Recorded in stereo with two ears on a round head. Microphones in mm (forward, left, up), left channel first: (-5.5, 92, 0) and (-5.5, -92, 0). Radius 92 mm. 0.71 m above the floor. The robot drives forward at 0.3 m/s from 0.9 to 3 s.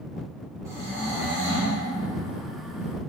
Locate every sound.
0.7 s snoring: 15° right (ahead or behind), 1.0 m; by 1.8 s 10° right (ahead or behind), 1.2 m